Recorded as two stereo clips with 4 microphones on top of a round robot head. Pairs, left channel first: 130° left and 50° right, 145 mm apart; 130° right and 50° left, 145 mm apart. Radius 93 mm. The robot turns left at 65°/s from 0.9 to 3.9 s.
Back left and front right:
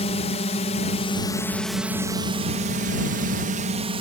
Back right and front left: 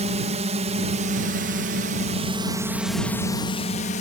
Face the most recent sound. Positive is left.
turn(degrees=-100)